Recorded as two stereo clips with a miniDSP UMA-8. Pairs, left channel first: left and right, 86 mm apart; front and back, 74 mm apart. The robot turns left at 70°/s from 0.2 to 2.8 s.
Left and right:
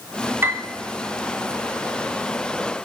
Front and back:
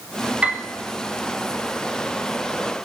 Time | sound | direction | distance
0.4 | a piano | 120° right | 0.9 m